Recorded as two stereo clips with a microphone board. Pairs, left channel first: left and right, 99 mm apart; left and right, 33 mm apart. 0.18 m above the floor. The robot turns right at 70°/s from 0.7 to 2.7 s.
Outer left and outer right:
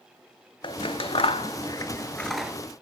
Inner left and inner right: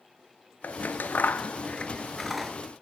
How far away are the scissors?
About 0.5 m.